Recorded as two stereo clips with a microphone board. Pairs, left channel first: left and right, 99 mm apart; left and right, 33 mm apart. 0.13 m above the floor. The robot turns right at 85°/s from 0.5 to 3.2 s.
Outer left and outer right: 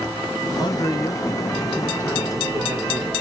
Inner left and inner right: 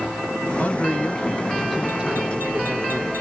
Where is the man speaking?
90° left, 1.6 m; by 3.1 s 55° right, 1.6 m.